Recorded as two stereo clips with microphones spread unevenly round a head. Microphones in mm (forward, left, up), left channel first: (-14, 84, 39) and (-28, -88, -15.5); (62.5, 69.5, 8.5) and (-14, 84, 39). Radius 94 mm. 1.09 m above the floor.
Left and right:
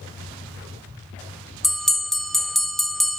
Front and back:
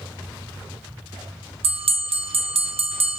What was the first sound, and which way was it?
A bell, 175° right.